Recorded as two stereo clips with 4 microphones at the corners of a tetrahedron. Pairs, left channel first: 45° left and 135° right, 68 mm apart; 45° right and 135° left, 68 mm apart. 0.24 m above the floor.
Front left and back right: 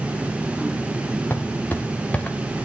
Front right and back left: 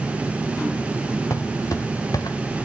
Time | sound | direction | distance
1.3 | footsteps | 15° right | 3 m